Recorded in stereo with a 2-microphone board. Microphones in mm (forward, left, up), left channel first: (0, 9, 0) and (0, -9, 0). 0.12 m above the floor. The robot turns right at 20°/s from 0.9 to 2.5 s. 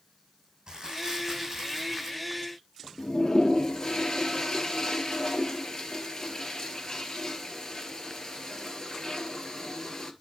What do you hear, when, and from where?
0.7 s crumpling: 35° right (ahead or behind), 5 m; by 2.2 s 10° right (ahead or behind), 5 m
3.0 s a toilet flushing: 30° left (ahead or behind), 1.4 m